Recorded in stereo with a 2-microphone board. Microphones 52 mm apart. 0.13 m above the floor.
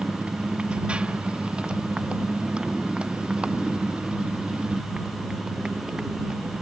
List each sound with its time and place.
0.0 s a motorcycle: 20° right (ahead or behind); by 6.6 s 15° right (ahead or behind)